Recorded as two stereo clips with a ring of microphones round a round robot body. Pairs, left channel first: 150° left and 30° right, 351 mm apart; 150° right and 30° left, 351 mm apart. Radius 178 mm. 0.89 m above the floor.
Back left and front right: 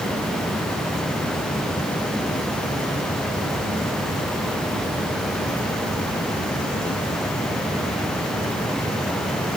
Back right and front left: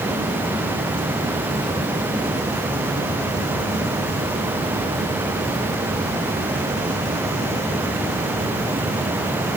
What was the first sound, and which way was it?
Only background noise.